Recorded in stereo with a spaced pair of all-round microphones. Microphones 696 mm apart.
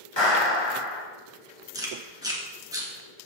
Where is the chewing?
5° right (ahead or behind), 1.7 m.